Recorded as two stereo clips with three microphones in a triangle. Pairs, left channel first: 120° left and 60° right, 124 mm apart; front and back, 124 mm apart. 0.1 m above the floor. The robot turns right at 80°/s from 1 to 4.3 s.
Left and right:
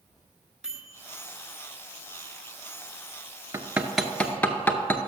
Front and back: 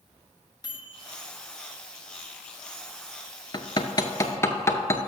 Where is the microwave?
20° left, 1.0 m; by 1.2 s 30° left, 1.0 m.